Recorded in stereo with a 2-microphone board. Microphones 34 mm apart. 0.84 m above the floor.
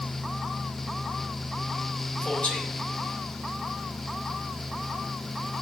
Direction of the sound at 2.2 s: 30° left (ahead or behind).